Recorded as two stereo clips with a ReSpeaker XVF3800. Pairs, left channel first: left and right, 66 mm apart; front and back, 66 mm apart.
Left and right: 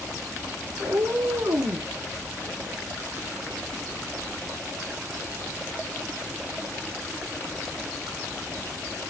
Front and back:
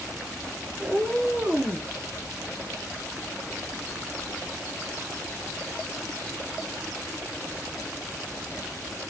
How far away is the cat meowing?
About 2 m.